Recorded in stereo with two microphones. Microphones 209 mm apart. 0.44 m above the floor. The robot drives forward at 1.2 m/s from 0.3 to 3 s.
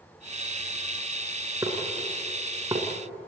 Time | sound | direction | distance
1.6 | dishes clattering | 15° right (ahead or behind) | 4.5 m